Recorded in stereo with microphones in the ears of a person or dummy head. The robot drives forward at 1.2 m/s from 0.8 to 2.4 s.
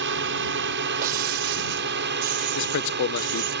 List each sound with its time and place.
0.0 s a drone: 55° right (ahead or behind)
1.0 s breaking glass: 45° right (ahead or behind); by 3.5 s 35° right (ahead or behind)
2.5 s a man speaking: 60° left (ahead or behind)